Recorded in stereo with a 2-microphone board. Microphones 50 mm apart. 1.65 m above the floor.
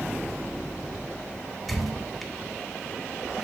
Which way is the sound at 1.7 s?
5° left (ahead or behind).